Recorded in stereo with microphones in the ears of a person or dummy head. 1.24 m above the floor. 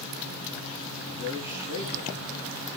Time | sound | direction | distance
1.1 | a man speaking | 85° right | 7 m